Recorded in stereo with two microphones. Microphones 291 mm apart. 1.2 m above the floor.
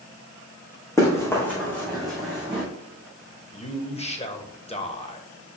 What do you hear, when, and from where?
1.0 s running footsteps: 10° left (ahead or behind), 3.5 m; by 2.6 s 5° right (ahead or behind), 3.5 m
3.5 s a man speaking: 20° left (ahead or behind), 1.1 m